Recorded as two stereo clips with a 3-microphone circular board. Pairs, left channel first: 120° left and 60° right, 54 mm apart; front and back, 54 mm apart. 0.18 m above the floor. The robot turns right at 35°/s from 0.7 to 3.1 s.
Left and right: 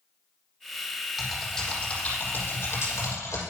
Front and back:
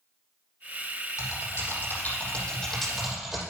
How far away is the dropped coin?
I don't hear a dropped coin.